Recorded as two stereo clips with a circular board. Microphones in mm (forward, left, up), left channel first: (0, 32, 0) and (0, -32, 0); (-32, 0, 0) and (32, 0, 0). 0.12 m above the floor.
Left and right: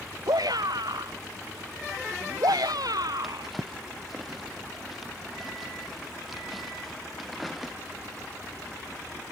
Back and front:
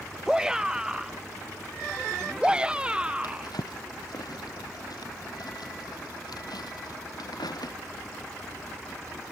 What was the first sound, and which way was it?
A shout, 80° right.